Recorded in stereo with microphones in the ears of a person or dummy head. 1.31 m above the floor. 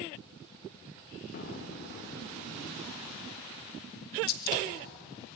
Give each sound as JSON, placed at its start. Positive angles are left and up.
{"t": 1.3, "sound": "an explosion", "side_deg": 40, "distance_m": 1.3}
{"t": 4.3, "sound": "a gunshot", "side_deg": 55, "distance_m": 1.7}